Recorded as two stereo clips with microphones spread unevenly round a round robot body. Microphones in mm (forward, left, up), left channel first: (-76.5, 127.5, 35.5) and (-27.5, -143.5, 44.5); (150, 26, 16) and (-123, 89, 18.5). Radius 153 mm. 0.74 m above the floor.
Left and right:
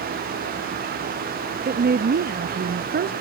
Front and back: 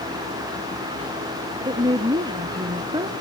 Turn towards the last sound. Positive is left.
turn(degrees=-120)